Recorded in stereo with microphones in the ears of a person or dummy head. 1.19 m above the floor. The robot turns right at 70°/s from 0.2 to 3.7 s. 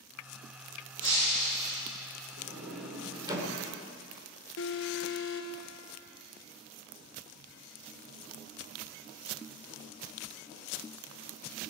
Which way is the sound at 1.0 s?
155° left.